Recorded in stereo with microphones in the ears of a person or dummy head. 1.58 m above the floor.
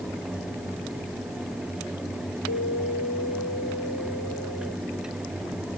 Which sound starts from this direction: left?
An alarm, at 2.5 s.